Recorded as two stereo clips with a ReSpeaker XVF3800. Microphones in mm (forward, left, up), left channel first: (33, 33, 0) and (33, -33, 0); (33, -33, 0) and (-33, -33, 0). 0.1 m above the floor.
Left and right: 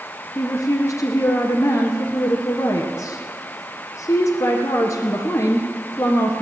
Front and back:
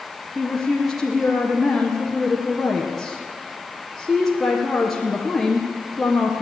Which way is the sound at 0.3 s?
90° left.